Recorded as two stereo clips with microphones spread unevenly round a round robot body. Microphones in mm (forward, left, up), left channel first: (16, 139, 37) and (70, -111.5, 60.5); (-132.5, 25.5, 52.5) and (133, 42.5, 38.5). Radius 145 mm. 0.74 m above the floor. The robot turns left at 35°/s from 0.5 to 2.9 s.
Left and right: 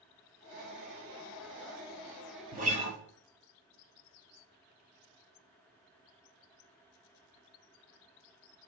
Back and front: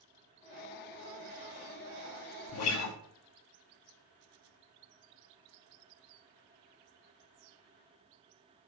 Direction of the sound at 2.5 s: 140° right.